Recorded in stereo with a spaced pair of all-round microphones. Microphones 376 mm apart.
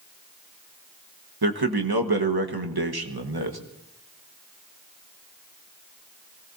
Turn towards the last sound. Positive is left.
turn(degrees=-80)